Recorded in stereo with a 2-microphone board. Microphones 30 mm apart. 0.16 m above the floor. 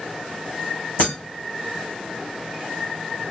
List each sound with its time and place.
1.0 s breaking glass: 75° left (ahead or behind), 1.8 m